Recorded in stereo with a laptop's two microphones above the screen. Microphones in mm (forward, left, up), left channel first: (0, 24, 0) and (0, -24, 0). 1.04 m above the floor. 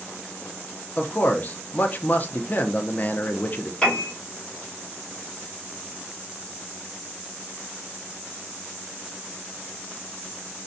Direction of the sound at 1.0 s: 35° left (ahead or behind).